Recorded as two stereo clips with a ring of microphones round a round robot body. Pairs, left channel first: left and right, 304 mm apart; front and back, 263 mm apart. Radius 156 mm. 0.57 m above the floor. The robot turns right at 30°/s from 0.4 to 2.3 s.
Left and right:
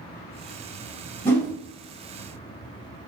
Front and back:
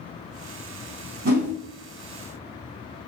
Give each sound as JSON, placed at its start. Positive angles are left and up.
{"t": 1.2, "sound": "a whoosh", "azimuth_deg": 170, "distance_m": 1.6}